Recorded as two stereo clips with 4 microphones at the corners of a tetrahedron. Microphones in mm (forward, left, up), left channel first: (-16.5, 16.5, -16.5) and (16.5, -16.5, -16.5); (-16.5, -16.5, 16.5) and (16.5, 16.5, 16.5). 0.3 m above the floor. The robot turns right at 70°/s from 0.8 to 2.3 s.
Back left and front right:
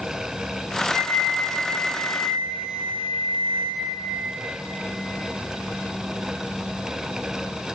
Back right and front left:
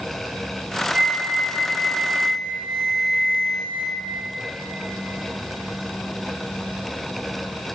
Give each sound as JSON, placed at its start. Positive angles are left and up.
{"t": 0.9, "sound": "a flute", "azimuth_deg": 20, "distance_m": 1.7}